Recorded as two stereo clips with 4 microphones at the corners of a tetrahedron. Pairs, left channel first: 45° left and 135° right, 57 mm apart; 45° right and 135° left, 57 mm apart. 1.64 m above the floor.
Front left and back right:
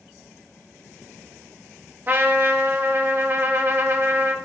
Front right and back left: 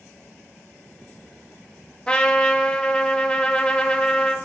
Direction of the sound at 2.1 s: 110° right.